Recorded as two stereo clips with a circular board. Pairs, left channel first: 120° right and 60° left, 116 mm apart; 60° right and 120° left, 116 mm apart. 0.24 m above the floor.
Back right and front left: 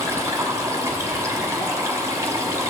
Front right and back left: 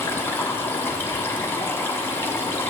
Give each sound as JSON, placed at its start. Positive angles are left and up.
{"t": 0.0, "sound": "running water", "azimuth_deg": 5, "distance_m": 1.1}